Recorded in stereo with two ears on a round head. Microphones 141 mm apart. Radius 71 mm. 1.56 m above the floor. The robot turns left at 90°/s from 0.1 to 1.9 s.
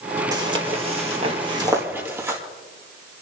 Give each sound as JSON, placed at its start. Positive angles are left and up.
{"t": 0.3, "sound": "footsteps", "side_deg": -25, "distance_m": 1.8}